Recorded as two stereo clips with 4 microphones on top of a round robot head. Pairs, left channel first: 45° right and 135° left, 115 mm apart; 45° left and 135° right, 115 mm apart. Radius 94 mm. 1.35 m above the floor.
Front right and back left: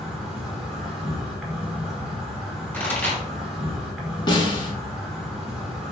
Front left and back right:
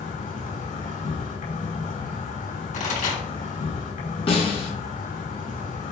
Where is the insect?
45° left, 5 m.